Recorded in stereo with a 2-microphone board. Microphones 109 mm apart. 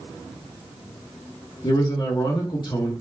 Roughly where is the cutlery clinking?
No cutlery clinking in this recording.